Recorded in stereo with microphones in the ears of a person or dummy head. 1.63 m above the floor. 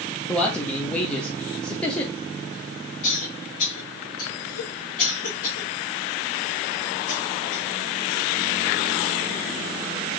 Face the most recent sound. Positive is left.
turn(degrees=55)  # may be behind; listen again after turning